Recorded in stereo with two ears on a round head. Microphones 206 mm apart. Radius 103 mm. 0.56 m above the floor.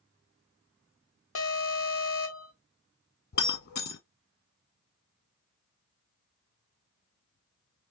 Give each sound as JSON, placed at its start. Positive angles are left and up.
{"t": 1.4, "sound": "an alarm", "side_deg": 60, "distance_m": 0.8}
{"t": 3.3, "sound": "breaking glass", "side_deg": 45, "distance_m": 1.3}